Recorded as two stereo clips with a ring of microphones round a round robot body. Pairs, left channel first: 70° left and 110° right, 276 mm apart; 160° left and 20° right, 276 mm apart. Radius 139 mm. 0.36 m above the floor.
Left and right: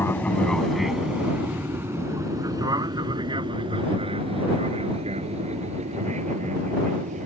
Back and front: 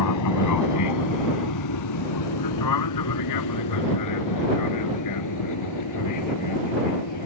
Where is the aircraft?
150° left; by 7.3 s straight behind.